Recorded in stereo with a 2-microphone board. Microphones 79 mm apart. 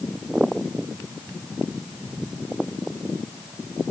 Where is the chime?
No chime in this recording.